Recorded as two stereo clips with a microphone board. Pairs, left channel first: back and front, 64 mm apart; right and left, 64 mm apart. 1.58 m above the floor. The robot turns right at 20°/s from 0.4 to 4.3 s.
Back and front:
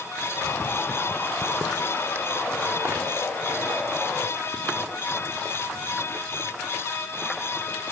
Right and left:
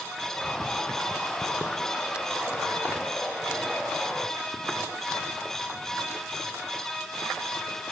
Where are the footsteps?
65° right, 1.7 m; by 7.8 s 80° left, 7 m.